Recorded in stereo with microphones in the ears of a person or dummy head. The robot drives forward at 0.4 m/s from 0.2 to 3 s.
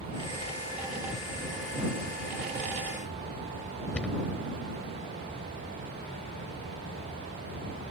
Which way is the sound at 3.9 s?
10° left (ahead or behind).